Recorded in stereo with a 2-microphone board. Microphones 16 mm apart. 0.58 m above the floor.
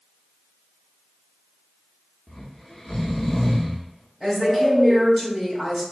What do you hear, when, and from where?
2.3 s snoring: 35° left (ahead or behind), 1.2 m
4.2 s a woman speaking: centre (ahead or behind), 2.0 m